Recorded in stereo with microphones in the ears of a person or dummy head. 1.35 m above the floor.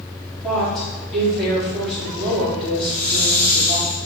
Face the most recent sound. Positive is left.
turn(degrees=10)  # may be behind; listen again after turning